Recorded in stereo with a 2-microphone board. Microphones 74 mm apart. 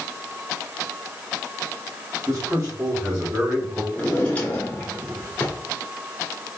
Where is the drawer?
20° left (ahead or behind), 1.2 m.